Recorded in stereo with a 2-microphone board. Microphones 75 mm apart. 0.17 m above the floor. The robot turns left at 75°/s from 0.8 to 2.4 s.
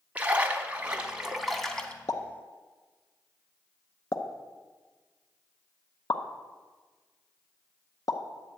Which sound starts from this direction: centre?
A splash, at 0.1 s.